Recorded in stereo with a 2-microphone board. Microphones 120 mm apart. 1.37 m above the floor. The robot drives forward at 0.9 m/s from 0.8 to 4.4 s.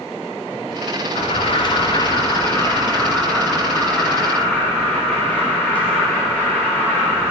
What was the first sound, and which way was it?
An alarm, 50° left (ahead or behind).